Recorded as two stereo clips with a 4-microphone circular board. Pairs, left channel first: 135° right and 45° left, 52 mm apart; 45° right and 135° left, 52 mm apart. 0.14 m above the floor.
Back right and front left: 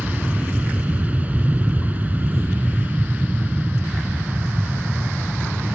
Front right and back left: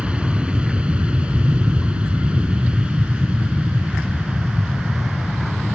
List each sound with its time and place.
0.0 s an aircraft: 80° left; by 5.7 s 70° left